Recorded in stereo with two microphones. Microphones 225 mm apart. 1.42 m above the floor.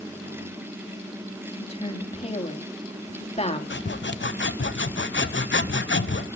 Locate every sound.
1.6 s a woman speaking: 25° left (ahead or behind), 2.5 m
3.7 s sawing: 55° left (ahead or behind), 0.7 m